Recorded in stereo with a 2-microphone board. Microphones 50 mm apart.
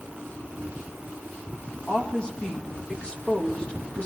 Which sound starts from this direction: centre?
A woman speaking, at 1.9 s.